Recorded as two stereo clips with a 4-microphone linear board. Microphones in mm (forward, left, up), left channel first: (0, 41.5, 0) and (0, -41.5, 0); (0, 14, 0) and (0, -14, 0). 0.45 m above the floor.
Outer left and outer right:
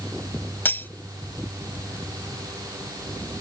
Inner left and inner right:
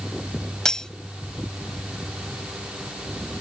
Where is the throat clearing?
No throat clearing in this recording.